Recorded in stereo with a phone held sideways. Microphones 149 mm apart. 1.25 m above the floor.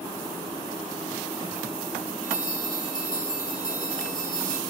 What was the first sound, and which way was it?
A bell, 60° left (ahead or behind).